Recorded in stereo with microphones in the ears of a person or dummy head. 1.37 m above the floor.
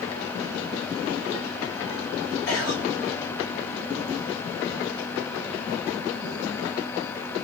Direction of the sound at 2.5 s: 70° left (ahead or behind).